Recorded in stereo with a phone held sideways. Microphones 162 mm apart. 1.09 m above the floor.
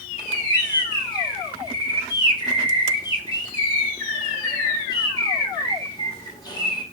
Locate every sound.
0.2 s a bird: 25° left (ahead or behind), 1.0 m